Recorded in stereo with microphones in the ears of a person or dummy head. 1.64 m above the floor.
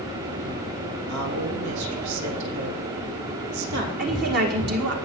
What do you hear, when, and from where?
1.1 s a woman speaking: 90° right, 3 m
4.0 s a woman speaking: 55° right (ahead or behind), 1.9 m